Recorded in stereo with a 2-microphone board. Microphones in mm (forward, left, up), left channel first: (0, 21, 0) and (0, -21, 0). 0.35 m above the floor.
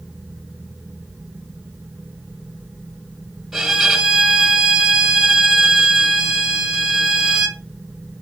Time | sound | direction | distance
3.5 | a violin | 5° right (ahead or behind) | 1.5 m